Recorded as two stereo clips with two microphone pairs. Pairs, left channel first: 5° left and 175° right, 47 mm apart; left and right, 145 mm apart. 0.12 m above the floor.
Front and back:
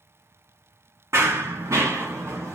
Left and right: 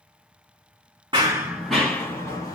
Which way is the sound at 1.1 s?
150° right.